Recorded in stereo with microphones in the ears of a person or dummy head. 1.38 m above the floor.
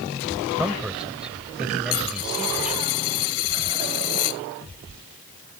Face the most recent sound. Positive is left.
turn(degrees=75)  # may be behind; listen again after turning